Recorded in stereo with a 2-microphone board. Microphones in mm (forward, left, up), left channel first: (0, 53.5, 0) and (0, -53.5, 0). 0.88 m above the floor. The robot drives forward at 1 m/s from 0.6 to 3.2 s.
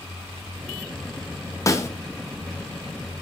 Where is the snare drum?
30° left (ahead or behind), 1.1 m; by 1.9 s 25° left (ahead or behind), 1.2 m.